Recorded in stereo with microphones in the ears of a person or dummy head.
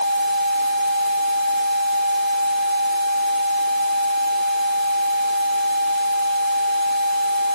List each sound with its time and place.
Only background noise.